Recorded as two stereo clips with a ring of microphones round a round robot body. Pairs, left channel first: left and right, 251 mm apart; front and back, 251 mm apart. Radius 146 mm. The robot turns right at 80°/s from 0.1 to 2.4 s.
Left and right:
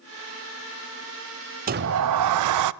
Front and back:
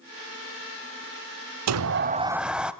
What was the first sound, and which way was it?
A sliding door, 150° right.